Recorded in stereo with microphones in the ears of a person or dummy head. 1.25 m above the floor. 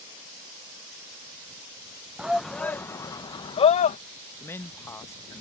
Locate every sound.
2.2 s a shout: centre (ahead or behind); by 4.0 s 40° left (ahead or behind)
4.4 s a man speaking: 10° left (ahead or behind)